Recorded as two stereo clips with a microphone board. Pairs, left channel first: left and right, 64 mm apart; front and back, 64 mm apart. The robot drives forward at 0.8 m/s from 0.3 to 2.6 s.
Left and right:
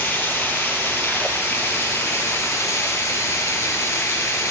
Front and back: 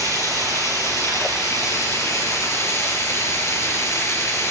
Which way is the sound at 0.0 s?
30° left.